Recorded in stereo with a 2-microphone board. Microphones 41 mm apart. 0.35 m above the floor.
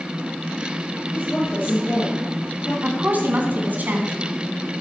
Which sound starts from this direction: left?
A woman speaking, at 1.1 s.